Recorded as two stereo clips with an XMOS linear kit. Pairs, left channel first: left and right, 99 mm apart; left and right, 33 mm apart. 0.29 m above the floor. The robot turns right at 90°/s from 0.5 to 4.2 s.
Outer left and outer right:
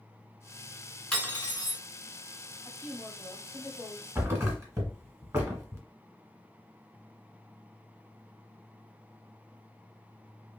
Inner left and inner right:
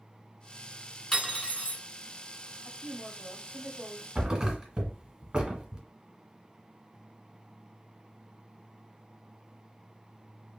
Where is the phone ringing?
I don't hear a phone ringing.